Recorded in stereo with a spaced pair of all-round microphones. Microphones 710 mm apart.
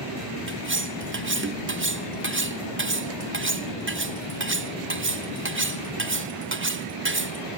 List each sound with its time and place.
0.5 s cutlery clinking: 20° right (ahead or behind), 0.6 m